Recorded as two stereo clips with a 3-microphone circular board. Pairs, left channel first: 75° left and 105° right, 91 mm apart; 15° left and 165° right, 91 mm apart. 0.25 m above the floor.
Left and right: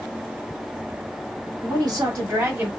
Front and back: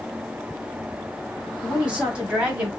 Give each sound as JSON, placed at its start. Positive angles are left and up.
{"t": 1.6, "sound": "a woman speaking", "azimuth_deg": -90, "distance_m": 2.0}